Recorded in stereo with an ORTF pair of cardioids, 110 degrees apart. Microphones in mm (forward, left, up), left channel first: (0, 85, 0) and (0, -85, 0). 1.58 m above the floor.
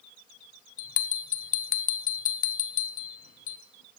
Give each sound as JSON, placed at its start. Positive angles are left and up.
{"t": 0.8, "sound": "a bell", "azimuth_deg": 55, "distance_m": 0.8}